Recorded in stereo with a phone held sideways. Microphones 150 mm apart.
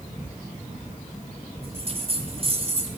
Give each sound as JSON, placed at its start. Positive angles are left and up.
{"t": 1.6, "sound": "a bell", "side_deg": -40, "distance_m": 1.3}